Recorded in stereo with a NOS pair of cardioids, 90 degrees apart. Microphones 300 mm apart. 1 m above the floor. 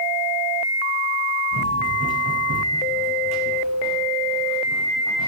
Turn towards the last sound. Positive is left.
turn(degrees=-70)